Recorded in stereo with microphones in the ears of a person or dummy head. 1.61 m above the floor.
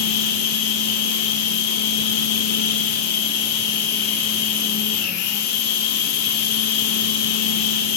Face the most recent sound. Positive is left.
turn(degrees=55)  # may be behind; listen again after turning